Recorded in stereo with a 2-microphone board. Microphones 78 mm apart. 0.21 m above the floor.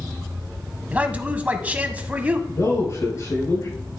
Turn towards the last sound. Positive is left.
turn(degrees=45)  # may be behind; listen again after turning